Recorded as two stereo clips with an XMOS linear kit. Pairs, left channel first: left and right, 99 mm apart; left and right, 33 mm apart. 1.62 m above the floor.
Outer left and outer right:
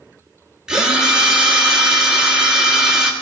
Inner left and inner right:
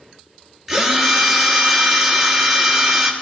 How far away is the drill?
About 1.2 m.